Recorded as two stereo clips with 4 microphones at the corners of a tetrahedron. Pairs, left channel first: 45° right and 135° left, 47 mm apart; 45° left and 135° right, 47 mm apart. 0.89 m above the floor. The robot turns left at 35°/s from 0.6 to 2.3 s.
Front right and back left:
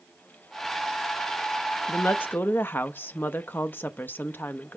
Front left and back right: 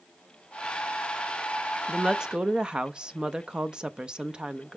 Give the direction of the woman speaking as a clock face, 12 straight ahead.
2 o'clock.